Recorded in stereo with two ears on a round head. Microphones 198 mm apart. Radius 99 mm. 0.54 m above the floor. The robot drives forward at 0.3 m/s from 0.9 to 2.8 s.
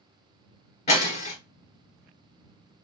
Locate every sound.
0.9 s breaking glass: 30° left (ahead or behind), 1.3 m; by 1.4 s 35° left (ahead or behind), 1.2 m